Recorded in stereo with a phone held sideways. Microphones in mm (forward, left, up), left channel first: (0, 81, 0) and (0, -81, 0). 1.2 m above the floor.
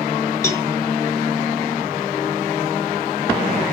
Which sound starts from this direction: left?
A cowbell, at 0.4 s.